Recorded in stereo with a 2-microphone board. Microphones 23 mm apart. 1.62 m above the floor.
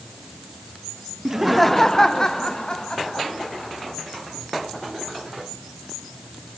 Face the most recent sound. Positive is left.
turn(degrees=40)  # may be behind; listen again after turning